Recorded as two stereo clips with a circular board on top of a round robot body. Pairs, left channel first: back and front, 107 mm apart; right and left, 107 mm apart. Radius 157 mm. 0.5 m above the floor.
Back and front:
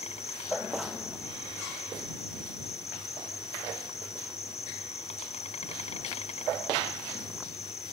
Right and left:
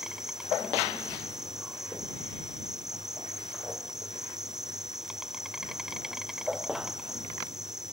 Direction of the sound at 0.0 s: 175° left.